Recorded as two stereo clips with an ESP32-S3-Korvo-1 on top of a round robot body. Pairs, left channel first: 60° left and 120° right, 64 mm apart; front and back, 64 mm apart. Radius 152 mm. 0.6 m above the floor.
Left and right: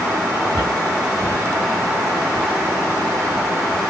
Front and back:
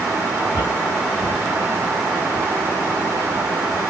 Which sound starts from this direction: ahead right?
Footsteps, at 0.5 s.